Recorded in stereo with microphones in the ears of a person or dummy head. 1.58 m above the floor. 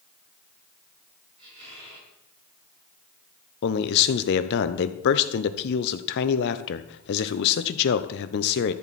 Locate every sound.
1.4 s a squeak: 35° right (ahead or behind), 6 m
3.6 s a man speaking: 60° left (ahead or behind), 0.9 m